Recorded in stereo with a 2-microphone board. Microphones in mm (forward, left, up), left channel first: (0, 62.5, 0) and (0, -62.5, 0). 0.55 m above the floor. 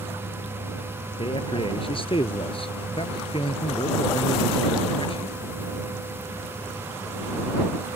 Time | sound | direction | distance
1.2 | a man speaking | 45° left (ahead or behind) | ?